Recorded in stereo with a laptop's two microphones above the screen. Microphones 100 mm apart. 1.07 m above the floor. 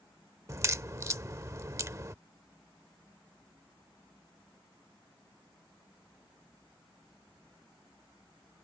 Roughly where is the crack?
Right.